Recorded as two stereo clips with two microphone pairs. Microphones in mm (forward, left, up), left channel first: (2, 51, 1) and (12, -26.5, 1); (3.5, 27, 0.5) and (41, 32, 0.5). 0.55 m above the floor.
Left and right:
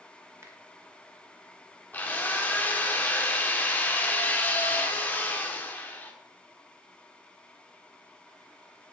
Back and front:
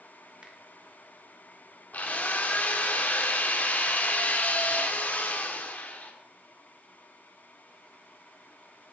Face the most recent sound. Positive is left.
turn(degrees=155)